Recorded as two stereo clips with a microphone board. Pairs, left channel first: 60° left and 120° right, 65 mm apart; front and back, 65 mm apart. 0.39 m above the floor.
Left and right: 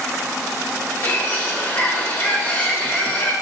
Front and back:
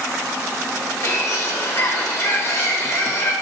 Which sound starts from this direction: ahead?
A bird, at 1.0 s.